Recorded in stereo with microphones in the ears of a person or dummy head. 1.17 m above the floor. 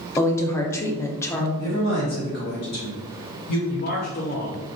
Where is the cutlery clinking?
No cutlery clinking in this recording.